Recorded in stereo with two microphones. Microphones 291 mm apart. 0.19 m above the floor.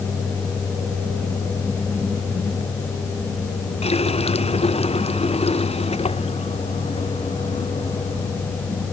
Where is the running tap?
20° left (ahead or behind).